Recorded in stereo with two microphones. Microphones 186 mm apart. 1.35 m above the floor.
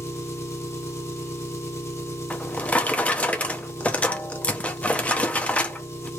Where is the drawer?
5° left (ahead or behind), 0.8 m.